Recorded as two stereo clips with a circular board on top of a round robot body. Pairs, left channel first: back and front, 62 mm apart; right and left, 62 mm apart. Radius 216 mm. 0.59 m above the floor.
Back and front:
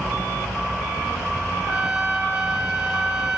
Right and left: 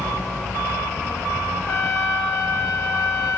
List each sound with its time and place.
1.7 s a trumpet: 75° right, 4 m